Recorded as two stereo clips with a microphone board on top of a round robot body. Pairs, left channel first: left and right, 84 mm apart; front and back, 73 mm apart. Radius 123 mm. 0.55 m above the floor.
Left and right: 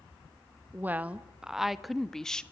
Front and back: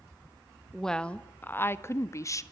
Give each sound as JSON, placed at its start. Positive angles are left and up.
{"t": 0.7, "sound": "a woman speaking", "azimuth_deg": -80, "distance_m": 1.1}